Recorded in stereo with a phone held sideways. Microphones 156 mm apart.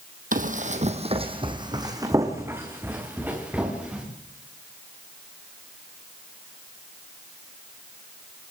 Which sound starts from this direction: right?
Running footsteps, at 0.3 s.